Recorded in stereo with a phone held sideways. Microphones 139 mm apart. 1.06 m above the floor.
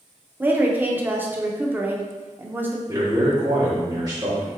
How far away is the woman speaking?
About 0.6 m.